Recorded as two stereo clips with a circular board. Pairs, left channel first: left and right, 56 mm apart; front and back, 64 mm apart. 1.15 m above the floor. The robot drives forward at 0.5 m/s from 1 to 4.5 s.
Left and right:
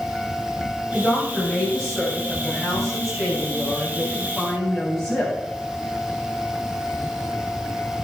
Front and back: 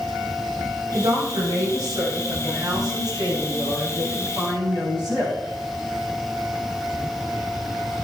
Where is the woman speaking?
170° left, 8 m; by 5.4 s 175° left, 9.5 m.